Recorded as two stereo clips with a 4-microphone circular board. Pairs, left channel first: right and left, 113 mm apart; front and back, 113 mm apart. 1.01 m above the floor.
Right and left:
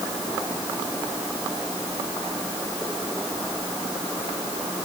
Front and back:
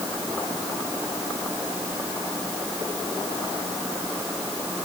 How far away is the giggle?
I don't hear a giggle.